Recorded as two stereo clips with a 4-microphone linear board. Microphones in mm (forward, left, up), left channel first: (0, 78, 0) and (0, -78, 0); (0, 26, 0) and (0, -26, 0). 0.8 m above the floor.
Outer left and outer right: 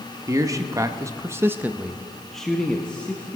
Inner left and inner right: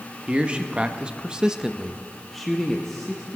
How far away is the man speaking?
About 1.1 m.